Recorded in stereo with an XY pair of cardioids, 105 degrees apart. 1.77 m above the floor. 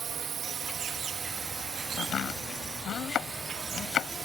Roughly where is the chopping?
Ahead left.